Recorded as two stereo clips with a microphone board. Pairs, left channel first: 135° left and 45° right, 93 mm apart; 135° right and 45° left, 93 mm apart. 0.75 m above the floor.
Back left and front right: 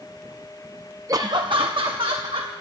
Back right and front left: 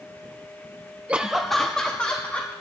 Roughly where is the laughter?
Ahead.